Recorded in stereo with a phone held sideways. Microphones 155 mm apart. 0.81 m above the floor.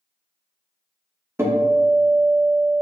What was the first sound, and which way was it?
A guitar, 15° right (ahead or behind).